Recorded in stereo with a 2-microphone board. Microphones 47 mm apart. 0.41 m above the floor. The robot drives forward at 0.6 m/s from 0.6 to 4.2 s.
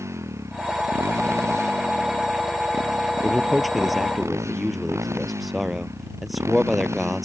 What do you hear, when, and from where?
0.0 s a motorcycle: 85° right; by 7.3 s 80° right
3.2 s a man speaking: centre (ahead or behind)